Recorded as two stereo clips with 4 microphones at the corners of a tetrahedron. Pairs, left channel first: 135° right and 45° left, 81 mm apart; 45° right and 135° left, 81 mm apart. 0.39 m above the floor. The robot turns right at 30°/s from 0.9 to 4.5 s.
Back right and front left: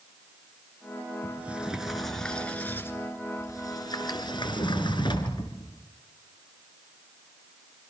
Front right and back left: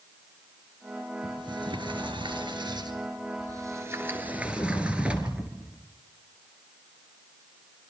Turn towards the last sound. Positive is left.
turn(degrees=-150)